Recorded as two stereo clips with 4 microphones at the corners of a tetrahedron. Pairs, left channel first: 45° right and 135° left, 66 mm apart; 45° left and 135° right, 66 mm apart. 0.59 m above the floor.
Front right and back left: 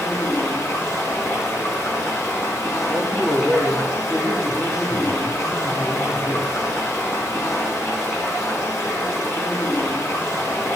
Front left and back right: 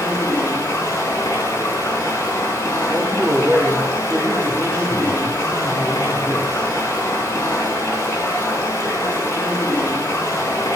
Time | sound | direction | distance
0.0 | running water | 5° right | 6.5 m
2.9 | a man speaking | 85° right | 3 m